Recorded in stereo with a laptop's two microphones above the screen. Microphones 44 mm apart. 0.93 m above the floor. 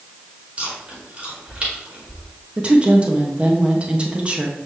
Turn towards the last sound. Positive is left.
turn(degrees=-30)  # may be behind; listen again after turning